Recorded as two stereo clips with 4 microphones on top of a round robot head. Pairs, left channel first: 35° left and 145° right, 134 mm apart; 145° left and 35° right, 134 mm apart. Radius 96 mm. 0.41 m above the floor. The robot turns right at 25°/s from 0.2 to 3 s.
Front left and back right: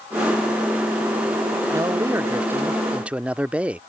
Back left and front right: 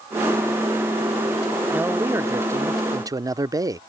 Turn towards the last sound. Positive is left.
turn(degrees=-70)